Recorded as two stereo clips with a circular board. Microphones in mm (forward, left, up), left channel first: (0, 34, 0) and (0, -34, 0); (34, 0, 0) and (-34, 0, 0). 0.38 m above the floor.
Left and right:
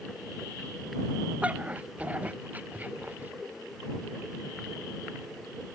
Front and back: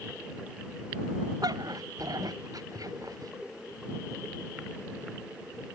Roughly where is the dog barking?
Behind.